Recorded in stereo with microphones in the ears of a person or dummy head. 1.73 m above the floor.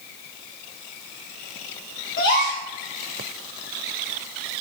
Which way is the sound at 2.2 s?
50° left (ahead or behind).